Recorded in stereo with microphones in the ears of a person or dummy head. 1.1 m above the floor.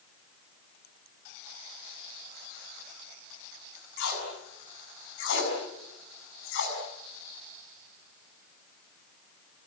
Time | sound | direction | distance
4.0 | tape being pulled | 70° left (ahead or behind) | 6.5 m